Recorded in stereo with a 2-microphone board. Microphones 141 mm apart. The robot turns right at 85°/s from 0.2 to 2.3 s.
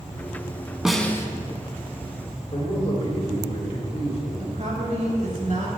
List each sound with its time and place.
0.8 s a snare drum: 5° right, 0.6 m; by 1.3 s 30° left, 0.6 m
2.5 s a man speaking: 45° left (ahead or behind), 1.7 m
4.4 s a woman speaking: 55° right (ahead or behind), 2.5 m